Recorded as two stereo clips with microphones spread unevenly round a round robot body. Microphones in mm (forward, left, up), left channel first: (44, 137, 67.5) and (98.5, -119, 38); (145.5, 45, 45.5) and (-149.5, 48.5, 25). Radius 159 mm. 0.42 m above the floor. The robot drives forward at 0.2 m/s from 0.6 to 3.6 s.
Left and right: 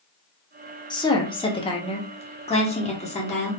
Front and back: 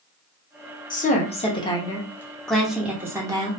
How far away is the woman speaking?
About 0.8 m.